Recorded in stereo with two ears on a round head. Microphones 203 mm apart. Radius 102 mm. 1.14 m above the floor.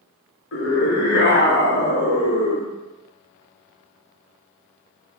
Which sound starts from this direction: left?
A scream, at 0.5 s.